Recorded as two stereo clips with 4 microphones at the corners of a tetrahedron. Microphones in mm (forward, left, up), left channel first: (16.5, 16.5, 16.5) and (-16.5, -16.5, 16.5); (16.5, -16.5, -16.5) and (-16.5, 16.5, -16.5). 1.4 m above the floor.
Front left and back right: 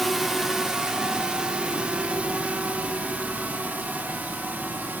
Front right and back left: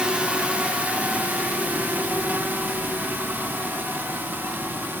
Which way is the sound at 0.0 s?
140° left.